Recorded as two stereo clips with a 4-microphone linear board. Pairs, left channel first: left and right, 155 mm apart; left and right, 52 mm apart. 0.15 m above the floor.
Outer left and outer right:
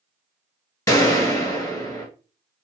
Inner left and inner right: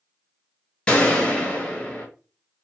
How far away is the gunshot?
About 1.4 m.